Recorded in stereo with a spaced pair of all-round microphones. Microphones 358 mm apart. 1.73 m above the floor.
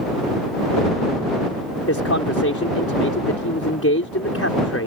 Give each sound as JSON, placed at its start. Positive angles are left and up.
{"t": 1.9, "sound": "a man speaking", "side_deg": 40}